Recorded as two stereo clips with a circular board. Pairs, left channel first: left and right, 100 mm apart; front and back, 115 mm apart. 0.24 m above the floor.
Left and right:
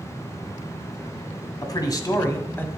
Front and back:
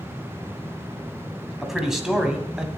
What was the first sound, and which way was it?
A man speaking, 95° left.